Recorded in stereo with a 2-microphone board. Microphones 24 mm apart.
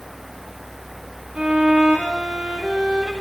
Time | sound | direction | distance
1.4 | a violin | 40° right (ahead or behind) | 8 m